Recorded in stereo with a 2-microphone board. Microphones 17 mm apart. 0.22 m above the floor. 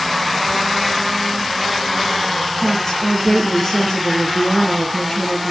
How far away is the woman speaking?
About 4.5 m.